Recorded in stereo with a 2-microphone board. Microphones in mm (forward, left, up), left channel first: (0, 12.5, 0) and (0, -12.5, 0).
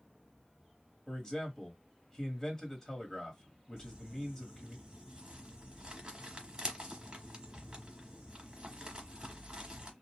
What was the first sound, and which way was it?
A man speaking, 25° left (ahead or behind).